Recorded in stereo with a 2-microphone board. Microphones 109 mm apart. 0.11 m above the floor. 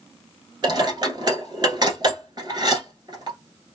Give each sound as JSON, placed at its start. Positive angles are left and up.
{"t": 0.6, "sound": "dishes clattering", "side_deg": -45, "distance_m": 1.0}